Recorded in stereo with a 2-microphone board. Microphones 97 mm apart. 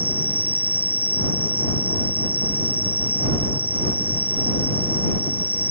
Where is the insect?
15° right (ahead or behind).